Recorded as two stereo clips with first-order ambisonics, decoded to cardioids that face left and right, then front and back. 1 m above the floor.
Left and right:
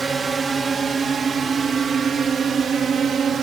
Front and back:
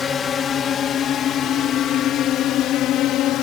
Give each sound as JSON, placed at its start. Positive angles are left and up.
{"t": 0.0, "sound": "a drone", "azimuth_deg": -35}